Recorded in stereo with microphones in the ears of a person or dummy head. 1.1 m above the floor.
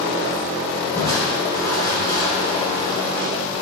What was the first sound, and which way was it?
Crushing, 20° left (ahead or behind).